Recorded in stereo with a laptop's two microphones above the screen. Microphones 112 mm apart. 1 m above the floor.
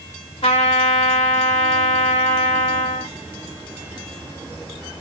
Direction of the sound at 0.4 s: 55° left (ahead or behind).